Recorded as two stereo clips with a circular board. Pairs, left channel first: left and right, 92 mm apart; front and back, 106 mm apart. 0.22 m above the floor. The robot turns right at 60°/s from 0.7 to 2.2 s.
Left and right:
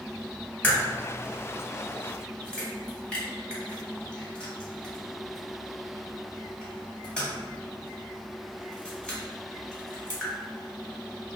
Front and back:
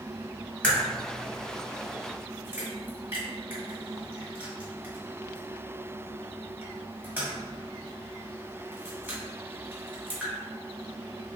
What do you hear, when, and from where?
0.6 s a crack: 60° left, 1.4 m; by 10.3 s 150° left, 1.4 m